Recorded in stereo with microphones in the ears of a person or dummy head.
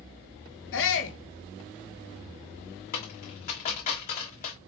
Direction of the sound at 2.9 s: 45° left (ahead or behind).